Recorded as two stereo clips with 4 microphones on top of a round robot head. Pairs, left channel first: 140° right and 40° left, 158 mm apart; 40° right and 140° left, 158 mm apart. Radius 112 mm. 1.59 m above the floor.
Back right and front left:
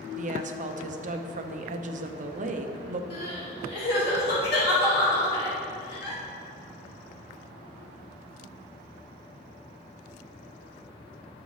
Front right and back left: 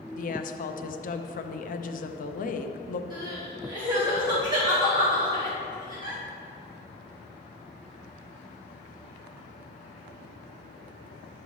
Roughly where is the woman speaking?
Ahead.